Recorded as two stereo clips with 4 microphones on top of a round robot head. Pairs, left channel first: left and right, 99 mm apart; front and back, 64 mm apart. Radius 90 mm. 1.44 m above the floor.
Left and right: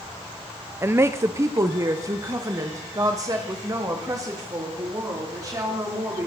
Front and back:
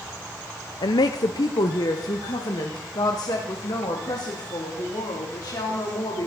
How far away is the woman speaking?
About 0.6 m.